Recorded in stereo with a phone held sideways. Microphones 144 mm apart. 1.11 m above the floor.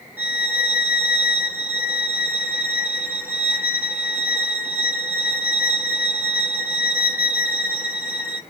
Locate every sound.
0.2 s a violin: 10° right (ahead or behind), 0.9 m